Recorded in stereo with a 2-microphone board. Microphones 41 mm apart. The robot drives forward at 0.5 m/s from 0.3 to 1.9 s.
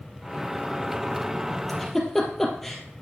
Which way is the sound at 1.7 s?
5° left (ahead or behind).